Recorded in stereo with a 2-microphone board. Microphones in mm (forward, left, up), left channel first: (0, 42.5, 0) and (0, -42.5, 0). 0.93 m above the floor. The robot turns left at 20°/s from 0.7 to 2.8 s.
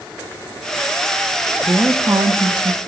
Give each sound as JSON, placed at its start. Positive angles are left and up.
{"t": 1.6, "sound": "a woman speaking", "side_deg": -30, "distance_m": 0.9}